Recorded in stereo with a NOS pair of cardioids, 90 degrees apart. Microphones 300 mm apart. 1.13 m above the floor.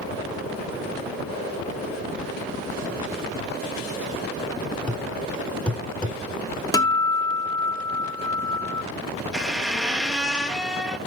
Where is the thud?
5° left, 2 m.